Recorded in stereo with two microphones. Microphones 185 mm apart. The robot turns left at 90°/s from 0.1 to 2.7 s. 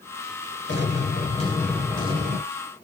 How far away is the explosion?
About 2 m.